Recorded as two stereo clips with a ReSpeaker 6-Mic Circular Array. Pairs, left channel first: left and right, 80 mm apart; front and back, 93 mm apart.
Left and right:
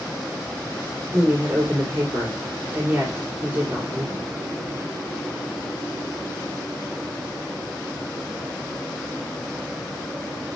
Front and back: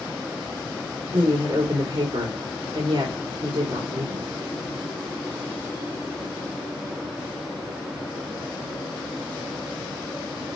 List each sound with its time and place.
1.1 s a woman speaking: 155° right, 3.5 m